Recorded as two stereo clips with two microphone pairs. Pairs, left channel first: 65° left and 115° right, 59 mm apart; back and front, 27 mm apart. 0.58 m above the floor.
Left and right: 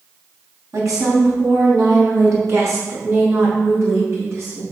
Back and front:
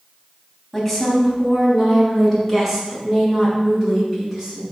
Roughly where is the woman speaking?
Right.